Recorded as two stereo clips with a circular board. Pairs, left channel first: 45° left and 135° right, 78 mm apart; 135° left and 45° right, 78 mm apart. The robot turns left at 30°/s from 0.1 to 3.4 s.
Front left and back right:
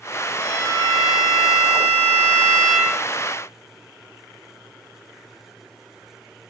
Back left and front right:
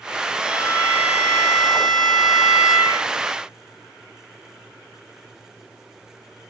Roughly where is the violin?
Ahead left.